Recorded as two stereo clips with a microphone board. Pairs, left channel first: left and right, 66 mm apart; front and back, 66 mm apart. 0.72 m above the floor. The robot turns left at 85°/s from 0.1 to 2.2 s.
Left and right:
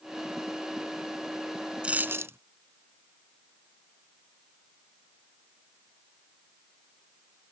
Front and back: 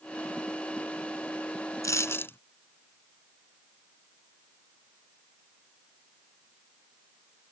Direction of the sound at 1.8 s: 15° right.